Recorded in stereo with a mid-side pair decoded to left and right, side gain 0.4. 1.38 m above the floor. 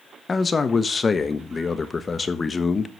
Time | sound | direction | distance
0.3 | a man speaking | 40° left | 1.2 m